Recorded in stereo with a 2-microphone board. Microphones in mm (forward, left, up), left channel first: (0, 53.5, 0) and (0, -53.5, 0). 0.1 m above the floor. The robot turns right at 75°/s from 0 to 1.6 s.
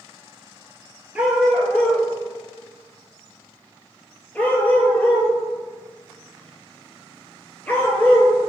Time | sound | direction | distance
1.1 | a dog barking | 10° right (ahead or behind) | 0.8 m